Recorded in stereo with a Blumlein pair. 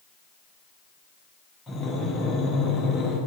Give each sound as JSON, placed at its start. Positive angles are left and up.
{"t": 1.7, "sound": "breathing", "azimuth_deg": 5, "distance_m": 1.3}